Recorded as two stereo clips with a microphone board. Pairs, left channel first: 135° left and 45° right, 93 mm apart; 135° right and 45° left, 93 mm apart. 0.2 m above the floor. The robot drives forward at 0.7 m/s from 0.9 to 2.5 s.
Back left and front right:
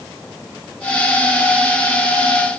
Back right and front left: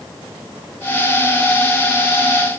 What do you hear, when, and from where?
Only background noise.